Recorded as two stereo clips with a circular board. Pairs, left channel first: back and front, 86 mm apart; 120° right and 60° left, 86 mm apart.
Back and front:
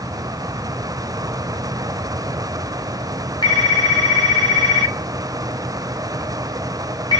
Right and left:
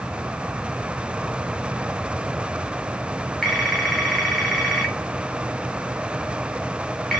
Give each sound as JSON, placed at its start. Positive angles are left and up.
{"t": 3.4, "sound": "a phone ringing", "azimuth_deg": 155, "distance_m": 1.2}